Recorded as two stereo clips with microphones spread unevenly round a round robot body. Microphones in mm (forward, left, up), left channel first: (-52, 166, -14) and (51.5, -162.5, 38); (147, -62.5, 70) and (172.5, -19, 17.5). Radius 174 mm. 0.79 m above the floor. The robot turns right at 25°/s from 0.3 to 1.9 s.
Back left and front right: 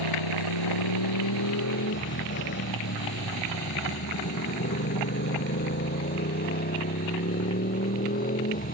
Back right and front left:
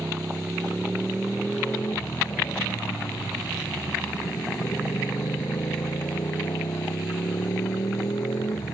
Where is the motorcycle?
125° left; by 8.7 s 175° left.